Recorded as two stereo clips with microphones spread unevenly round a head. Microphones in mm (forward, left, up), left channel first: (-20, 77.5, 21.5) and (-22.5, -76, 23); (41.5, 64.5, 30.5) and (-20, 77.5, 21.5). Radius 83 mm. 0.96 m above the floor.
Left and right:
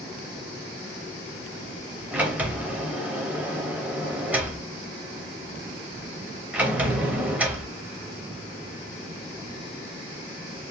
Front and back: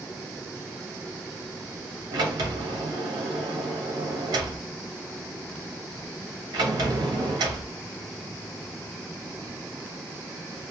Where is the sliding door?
170° right, 0.6 m.